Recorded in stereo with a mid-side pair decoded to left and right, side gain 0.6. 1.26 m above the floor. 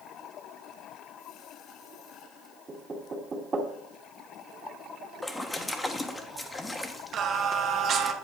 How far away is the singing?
About 1.0 m.